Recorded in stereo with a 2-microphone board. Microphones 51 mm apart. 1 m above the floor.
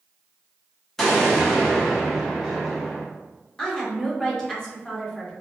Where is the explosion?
10° left (ahead or behind), 0.9 m.